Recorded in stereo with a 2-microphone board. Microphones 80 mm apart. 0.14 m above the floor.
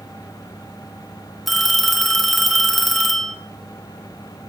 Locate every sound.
1.5 s a phone ringing: centre (ahead or behind), 0.8 m